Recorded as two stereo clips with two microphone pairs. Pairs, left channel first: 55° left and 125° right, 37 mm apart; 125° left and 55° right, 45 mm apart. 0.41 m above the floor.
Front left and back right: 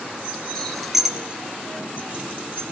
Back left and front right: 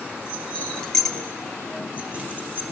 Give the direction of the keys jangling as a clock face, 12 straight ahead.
8 o'clock.